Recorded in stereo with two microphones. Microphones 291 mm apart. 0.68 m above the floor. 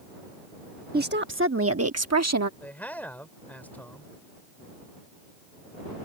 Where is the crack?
I don't hear a crack.